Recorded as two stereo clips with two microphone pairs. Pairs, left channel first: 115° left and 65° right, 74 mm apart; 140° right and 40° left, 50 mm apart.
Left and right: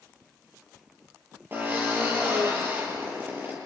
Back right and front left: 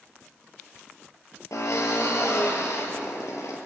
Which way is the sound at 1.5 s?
125° right.